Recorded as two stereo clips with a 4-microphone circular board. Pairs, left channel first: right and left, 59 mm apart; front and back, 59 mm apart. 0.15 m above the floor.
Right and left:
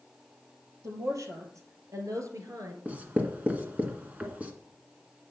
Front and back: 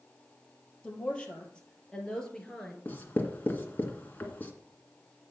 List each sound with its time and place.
0.8 s a woman speaking: 70° left, 3.5 m; by 2.8 s 80° left, 2 m
2.9 s writing: 40° left, 1.9 m